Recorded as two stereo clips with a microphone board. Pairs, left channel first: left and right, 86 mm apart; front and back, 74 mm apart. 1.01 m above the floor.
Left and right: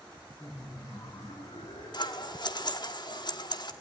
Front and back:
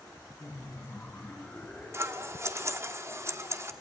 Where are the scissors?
125° left, 1.1 m.